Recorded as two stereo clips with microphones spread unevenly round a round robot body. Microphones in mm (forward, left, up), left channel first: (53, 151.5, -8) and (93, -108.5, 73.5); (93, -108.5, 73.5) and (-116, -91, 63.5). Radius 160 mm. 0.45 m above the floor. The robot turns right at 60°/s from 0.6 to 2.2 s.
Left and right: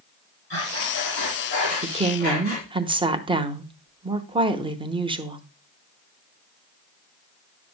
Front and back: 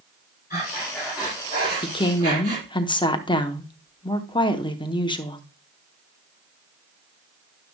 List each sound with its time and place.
0.5 s breathing: 55° left, 4.5 m; by 2.7 s 155° left, 4.5 m
1.8 s a woman speaking: 15° right, 0.9 m; by 5.4 s 10° left, 0.9 m